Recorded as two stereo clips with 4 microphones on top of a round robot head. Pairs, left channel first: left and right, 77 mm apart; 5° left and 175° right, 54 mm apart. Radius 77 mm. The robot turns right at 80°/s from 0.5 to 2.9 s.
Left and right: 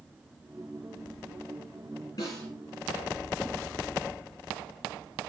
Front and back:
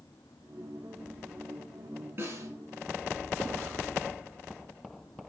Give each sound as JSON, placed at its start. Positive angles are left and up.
{"t": 2.2, "sound": "a snare drum", "azimuth_deg": 135, "distance_m": 3.5}